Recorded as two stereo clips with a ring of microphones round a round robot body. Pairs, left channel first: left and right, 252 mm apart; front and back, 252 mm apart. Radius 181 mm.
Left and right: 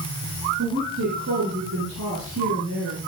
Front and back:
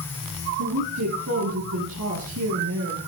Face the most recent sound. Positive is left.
turn(degrees=-140)